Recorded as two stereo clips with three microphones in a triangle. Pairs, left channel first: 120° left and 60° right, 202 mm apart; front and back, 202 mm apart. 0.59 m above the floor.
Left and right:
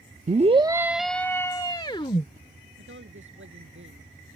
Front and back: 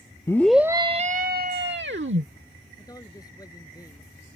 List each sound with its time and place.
0.3 s a scream: 65° right; by 2.3 s straight behind
2.8 s a woman speaking: 70° right